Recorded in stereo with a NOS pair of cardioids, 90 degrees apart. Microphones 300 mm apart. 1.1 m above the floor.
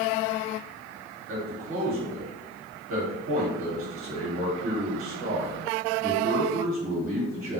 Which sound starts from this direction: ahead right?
A man speaking, at 1.3 s.